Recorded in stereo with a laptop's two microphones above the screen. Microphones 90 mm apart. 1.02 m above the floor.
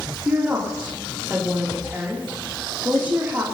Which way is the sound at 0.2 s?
20° right (ahead or behind).